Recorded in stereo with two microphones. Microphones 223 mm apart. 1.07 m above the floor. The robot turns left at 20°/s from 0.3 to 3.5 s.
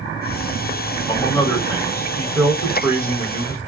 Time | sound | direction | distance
1.1 | a man speaking | 25° left | 1.7 m